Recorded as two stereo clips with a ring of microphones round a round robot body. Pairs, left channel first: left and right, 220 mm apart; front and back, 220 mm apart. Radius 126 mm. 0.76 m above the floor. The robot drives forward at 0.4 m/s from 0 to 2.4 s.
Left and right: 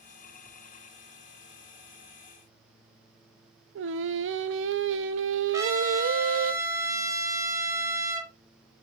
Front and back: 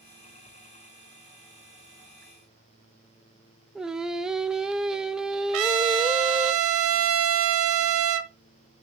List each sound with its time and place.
3.8 s singing: 95° right, 0.9 m
5.5 s a trumpet: 165° right, 1.1 m